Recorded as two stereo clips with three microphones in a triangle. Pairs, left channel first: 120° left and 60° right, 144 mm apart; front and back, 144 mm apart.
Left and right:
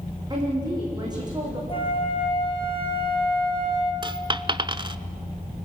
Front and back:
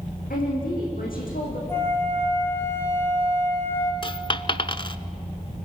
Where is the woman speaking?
Straight ahead, 7.5 m.